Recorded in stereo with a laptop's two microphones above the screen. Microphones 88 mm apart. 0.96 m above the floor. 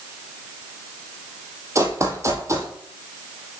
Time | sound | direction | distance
1.8 | running footsteps | 35° right (ahead or behind) | 1.2 m